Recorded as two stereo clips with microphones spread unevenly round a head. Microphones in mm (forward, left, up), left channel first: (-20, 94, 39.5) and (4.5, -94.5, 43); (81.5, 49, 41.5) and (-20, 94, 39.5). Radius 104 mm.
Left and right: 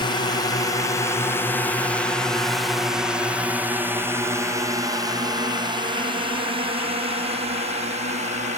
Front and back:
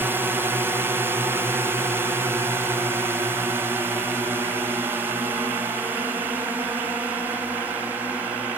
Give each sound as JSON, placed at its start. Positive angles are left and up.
{"t": 0.0, "sound": "a drone", "azimuth_deg": 120}